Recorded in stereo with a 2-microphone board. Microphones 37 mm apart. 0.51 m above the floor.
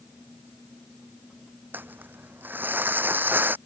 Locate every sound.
1.7 s crumpling: 65° right (ahead or behind)